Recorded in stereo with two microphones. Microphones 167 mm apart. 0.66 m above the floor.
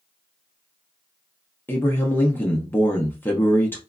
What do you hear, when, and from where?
1.7 s a man speaking: 10° left (ahead or behind), 0.6 m